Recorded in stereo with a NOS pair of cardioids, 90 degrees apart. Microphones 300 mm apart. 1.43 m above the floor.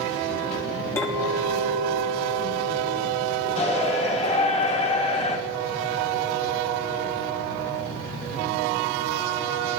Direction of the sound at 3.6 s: 20° left.